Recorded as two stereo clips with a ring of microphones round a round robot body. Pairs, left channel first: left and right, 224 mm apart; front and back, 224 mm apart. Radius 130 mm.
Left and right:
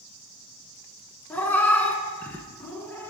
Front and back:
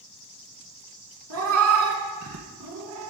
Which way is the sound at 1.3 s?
170° left.